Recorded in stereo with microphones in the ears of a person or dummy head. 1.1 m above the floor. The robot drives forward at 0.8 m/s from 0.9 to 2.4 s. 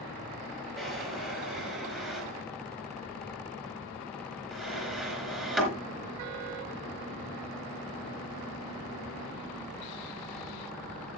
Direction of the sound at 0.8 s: 5° right (ahead or behind).